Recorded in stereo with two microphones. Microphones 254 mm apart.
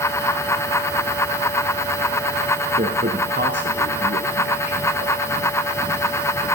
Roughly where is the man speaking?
Right.